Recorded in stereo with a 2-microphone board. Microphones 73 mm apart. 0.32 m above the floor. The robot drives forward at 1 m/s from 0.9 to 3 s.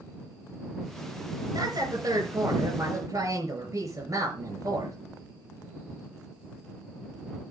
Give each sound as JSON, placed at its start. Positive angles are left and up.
{"t": 1.5, "sound": "a woman speaking", "side_deg": -65, "distance_m": 3.5}